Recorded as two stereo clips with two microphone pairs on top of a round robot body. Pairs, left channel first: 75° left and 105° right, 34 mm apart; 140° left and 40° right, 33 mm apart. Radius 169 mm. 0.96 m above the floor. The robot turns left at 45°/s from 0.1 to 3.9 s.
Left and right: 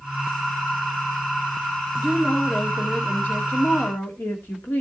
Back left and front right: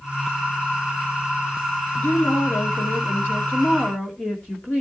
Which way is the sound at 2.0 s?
170° left.